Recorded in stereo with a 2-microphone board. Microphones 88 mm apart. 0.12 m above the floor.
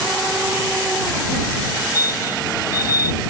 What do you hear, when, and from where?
1.6 s a fire alarm: 45° left (ahead or behind)